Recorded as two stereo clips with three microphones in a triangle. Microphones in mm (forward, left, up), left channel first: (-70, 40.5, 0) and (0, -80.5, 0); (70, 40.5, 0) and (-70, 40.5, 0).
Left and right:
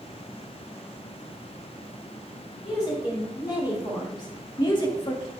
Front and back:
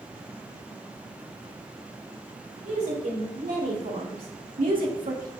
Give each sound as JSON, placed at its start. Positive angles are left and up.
{"t": 2.6, "sound": "a woman speaking", "azimuth_deg": 180, "distance_m": 4.0}